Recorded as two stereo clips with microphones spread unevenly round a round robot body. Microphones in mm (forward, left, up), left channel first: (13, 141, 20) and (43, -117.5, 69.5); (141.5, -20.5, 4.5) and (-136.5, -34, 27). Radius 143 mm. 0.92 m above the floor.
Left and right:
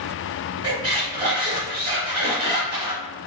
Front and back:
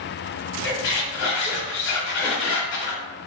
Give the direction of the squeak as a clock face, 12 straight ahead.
1 o'clock.